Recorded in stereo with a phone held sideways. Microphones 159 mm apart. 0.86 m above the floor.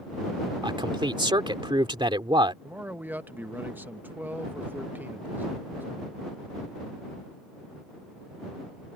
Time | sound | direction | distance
0.6 | a man speaking | 30° right (ahead or behind) | ?
2.6 | a man speaking | 10° right (ahead or behind) | ?